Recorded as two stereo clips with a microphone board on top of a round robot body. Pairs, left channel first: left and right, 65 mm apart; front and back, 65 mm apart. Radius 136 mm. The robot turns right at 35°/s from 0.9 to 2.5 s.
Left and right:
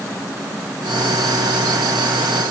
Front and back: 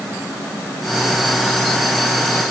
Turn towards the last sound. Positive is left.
No sound to turn to.